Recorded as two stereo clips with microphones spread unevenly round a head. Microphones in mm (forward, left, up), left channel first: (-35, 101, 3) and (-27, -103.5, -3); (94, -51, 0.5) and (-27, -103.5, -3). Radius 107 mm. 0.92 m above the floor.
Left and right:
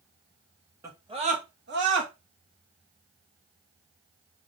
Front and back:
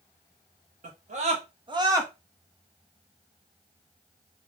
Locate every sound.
0.8 s a scream: 160° right, 1.7 m; by 2.1 s 90° right, 1.7 m